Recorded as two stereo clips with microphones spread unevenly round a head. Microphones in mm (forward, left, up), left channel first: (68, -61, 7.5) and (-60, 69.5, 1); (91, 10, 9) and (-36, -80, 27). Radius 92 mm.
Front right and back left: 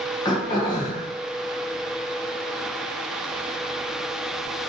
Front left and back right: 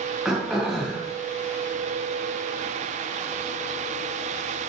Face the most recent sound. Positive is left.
turn(degrees=-75)